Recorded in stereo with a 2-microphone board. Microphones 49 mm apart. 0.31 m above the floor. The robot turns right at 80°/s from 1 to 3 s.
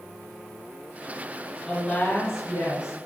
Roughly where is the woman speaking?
Ahead.